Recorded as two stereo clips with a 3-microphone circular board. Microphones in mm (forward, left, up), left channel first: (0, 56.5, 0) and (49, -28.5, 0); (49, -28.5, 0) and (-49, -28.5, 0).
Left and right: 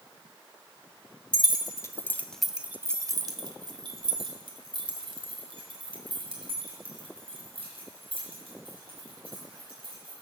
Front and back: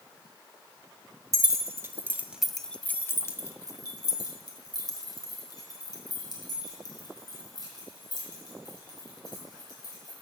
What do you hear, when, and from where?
1.3 s keys jangling: 140° left, 1.2 m; by 10.1 s 45° right, 6.5 m